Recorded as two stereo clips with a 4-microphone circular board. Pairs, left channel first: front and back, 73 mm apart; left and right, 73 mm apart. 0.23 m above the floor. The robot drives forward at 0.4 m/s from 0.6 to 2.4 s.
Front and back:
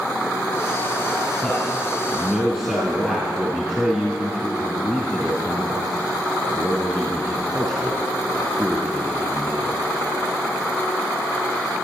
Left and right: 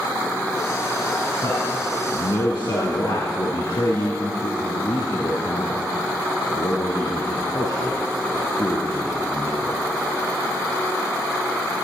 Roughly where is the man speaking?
Left.